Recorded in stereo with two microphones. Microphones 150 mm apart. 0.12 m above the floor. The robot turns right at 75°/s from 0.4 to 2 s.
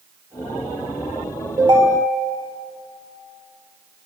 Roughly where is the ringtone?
Behind right.